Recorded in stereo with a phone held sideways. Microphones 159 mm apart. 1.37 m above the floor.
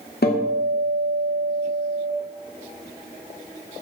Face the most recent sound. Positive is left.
turn(degrees=80)